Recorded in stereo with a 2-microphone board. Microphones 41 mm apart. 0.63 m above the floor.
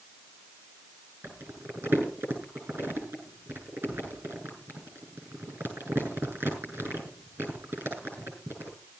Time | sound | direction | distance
1.2 | crumpling | 55° right (ahead or behind) | 7 m